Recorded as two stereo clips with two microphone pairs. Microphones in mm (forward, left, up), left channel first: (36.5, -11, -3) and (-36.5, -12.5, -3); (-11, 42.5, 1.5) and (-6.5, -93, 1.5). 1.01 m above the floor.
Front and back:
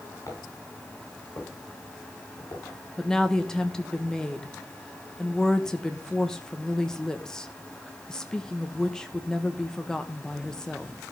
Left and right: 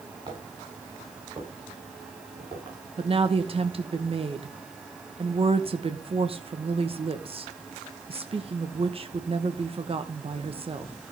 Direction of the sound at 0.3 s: 35° right.